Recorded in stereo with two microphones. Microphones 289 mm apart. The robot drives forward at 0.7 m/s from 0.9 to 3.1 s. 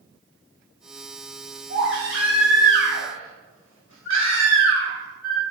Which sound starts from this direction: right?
A baby crying, at 1.7 s.